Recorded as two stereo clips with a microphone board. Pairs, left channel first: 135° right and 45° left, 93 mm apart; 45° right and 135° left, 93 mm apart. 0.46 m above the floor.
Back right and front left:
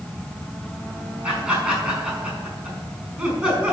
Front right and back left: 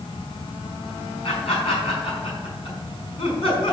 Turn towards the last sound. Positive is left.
turn(degrees=-35)